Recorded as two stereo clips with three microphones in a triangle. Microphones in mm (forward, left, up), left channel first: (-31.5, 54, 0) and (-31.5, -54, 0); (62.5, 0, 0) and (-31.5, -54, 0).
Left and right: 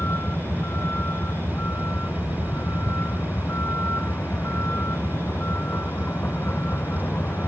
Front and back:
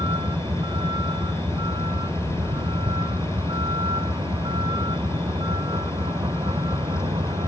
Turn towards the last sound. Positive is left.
turn(degrees=160)